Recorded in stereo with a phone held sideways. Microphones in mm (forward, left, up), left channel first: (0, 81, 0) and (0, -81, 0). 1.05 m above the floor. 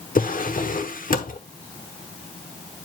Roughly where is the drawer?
Left.